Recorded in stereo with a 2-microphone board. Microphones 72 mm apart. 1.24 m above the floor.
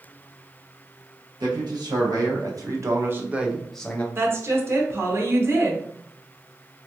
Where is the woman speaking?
35° right (ahead or behind), 0.8 m.